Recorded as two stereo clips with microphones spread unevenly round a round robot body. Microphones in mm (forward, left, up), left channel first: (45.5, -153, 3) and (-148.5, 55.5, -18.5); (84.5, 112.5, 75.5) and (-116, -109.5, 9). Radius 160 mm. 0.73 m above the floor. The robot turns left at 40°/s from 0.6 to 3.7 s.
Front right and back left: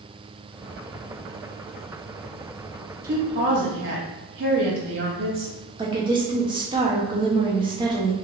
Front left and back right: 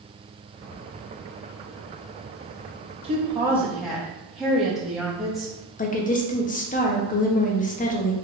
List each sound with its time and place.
3.0 s a woman speaking: 175° left, 0.9 m; by 5.5 s 150° left, 0.9 m
5.8 s a woman speaking: 105° left, 0.6 m